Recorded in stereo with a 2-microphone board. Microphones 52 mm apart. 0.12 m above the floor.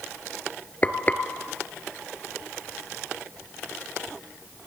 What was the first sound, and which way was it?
Frying, 30° left (ahead or behind).